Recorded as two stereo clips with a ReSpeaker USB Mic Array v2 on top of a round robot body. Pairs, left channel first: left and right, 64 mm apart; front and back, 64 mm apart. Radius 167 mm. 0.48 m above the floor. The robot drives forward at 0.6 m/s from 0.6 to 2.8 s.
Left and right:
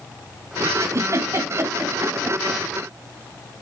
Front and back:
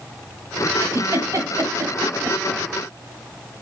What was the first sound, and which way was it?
A giggle, 130° right.